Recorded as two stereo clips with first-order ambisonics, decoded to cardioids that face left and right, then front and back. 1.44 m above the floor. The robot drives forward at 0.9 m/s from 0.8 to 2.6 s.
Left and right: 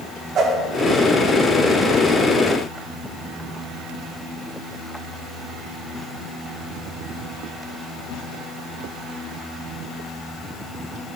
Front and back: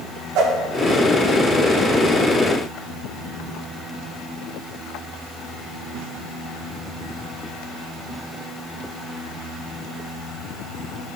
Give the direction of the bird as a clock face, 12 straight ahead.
No bird in this recording.